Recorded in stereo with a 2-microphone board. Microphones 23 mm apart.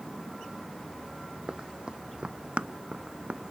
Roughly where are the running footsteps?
Right.